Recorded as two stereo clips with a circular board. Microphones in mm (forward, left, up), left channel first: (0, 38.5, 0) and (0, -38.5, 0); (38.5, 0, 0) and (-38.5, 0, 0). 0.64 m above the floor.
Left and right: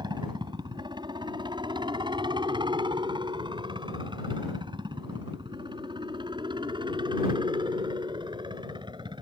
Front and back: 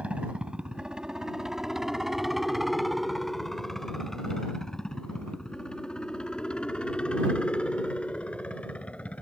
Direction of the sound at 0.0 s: 105° right.